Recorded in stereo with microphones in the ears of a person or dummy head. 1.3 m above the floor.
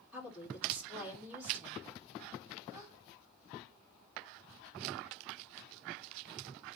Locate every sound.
0.1 s a woman speaking: 15° right (ahead or behind), 3 m
2.7 s a gasp: 20° right (ahead or behind), 4.5 m